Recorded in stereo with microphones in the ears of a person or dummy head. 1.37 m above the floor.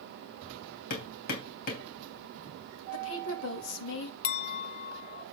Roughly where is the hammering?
Left.